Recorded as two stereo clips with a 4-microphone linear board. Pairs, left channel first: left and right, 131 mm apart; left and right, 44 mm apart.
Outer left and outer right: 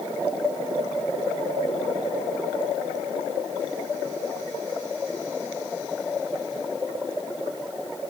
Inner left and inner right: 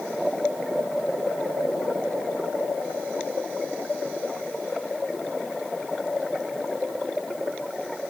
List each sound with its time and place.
Only background noise.